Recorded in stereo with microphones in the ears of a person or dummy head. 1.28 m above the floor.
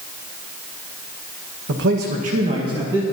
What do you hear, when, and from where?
1.7 s a man speaking: 60° right (ahead or behind), 1.5 m; by 3.0 s 5° right (ahead or behind), 2 m